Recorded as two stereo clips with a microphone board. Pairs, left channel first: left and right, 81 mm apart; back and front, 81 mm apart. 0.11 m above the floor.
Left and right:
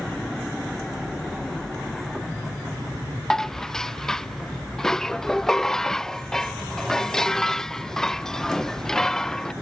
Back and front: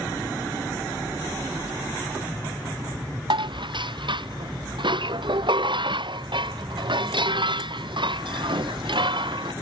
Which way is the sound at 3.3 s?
5° left.